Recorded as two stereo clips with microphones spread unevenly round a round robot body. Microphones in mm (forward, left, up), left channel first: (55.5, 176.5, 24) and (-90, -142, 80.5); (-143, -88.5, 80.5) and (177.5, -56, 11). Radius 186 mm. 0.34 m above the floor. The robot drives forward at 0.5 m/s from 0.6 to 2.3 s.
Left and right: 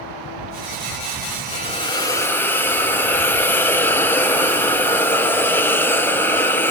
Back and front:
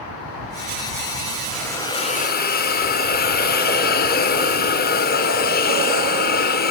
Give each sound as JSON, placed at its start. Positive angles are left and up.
{"t": 1.5, "sound": "a hiss", "azimuth_deg": 70, "distance_m": 0.9}